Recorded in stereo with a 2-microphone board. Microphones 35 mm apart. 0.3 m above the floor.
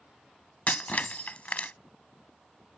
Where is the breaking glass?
40° left (ahead or behind).